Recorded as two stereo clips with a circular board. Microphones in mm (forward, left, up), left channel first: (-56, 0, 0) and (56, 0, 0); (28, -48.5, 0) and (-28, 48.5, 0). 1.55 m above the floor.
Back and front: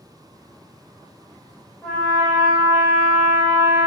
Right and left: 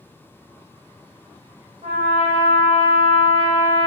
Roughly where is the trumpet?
Left.